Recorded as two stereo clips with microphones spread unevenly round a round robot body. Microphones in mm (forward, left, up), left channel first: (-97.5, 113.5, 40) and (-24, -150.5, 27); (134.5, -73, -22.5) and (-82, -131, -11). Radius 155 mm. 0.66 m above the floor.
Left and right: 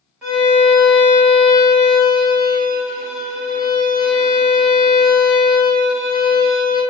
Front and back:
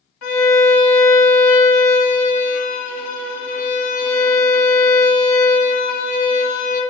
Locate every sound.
0.2 s a violin: 15° left, 1.6 m